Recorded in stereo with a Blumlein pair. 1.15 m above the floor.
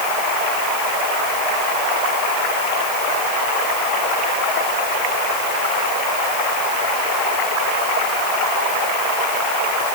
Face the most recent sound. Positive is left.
No sound to turn to.